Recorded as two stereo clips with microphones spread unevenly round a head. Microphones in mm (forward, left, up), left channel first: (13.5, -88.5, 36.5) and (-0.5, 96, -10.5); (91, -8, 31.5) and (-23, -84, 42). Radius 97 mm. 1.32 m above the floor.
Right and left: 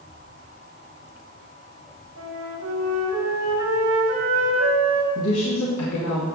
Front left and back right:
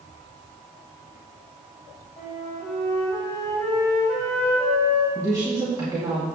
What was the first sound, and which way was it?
A flute, 115° left.